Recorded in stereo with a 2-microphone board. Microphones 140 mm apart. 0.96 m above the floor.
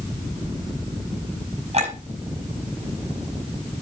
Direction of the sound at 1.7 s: 45° right (ahead or behind).